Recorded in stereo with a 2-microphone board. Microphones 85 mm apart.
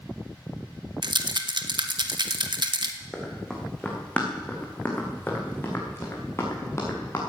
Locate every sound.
1.0 s a rattle: 65° right (ahead or behind), 1.1 m
3.1 s running footsteps: 5° left (ahead or behind), 4 m; by 7.2 s 35° left (ahead or behind), 5.5 m